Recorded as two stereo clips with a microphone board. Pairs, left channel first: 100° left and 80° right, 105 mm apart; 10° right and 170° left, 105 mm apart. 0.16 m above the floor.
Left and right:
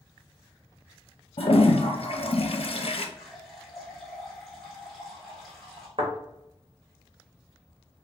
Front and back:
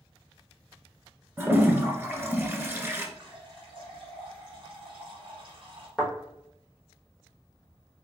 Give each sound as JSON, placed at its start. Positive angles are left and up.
{"t": 1.4, "sound": "a toilet flushing", "azimuth_deg": 105, "distance_m": 0.6}
{"t": 3.2, "sound": "a running tap", "azimuth_deg": -170, "distance_m": 1.2}
{"t": 6.0, "sound": "a thud", "azimuth_deg": -105, "distance_m": 1.4}